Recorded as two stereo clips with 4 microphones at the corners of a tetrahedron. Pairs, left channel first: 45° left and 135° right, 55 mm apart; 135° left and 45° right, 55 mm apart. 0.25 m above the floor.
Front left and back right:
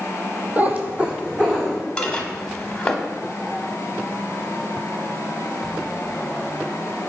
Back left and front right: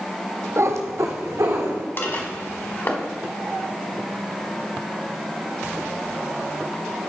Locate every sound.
0.6 s a cat meowing: 75° right, 1.0 m; by 1.8 s 65° right, 2.5 m
2.0 s dishes clattering: 115° left, 1.2 m